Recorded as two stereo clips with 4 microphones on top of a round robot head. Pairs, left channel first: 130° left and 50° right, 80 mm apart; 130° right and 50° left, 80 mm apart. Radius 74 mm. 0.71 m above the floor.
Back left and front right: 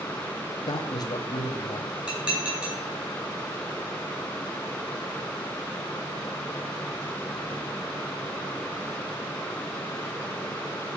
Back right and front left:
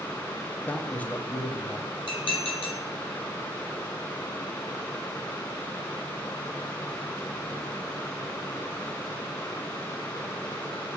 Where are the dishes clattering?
125° right, 3.5 m.